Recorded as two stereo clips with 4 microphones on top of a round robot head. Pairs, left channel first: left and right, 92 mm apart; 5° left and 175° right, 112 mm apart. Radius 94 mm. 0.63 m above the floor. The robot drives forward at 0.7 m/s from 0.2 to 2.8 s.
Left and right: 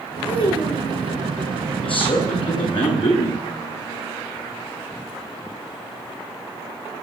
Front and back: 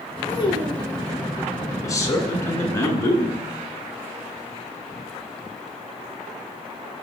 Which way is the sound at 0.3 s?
55° left.